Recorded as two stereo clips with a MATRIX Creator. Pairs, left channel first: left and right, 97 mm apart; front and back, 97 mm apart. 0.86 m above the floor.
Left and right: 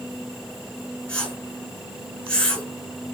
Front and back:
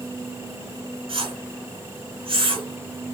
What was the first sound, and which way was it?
A whoosh, 165° left.